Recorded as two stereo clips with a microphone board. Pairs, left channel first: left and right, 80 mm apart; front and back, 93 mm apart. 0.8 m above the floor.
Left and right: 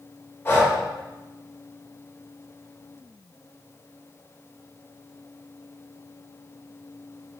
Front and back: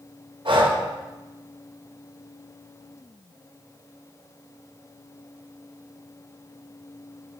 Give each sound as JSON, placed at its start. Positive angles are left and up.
{"t": 0.5, "sound": "breathing", "azimuth_deg": 150, "distance_m": 0.5}